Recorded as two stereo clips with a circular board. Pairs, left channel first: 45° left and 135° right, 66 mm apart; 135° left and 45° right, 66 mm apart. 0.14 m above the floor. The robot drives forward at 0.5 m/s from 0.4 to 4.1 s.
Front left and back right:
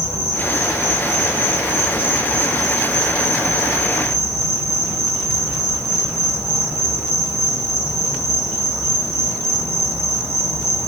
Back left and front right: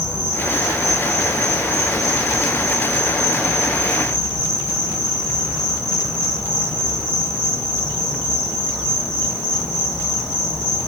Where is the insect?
25° left, 3 m; by 10.9 s 120° left, 2.5 m.